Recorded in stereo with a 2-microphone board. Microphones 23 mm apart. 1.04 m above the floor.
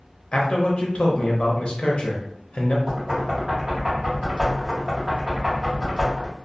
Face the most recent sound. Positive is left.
turn(degrees=-30)  # may be behind; listen again after turning